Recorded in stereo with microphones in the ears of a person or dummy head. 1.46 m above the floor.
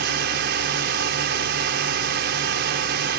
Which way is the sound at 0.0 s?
55° right (ahead or behind).